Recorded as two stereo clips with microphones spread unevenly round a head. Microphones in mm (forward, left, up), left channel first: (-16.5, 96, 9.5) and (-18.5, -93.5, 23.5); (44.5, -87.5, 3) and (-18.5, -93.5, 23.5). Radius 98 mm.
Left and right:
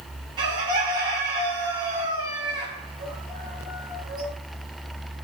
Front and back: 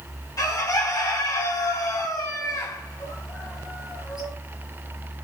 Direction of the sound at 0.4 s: 20° right.